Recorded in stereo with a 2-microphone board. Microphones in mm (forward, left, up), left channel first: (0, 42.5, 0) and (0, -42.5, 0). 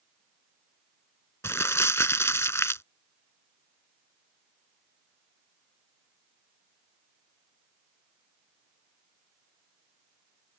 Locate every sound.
1.4 s crumpling: 30° left (ahead or behind)